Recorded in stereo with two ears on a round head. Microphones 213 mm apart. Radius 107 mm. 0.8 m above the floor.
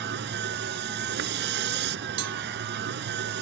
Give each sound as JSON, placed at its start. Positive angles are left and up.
{"t": 0.0, "sound": "a vehicle", "side_deg": -45}
{"t": 2.2, "sound": "a cowbell", "side_deg": -85}